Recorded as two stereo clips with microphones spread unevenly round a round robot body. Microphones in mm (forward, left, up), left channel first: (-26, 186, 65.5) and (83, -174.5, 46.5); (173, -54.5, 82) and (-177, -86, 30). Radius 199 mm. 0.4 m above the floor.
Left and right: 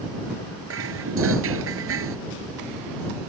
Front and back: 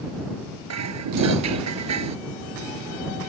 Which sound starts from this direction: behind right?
Dishes clattering, at 0.7 s.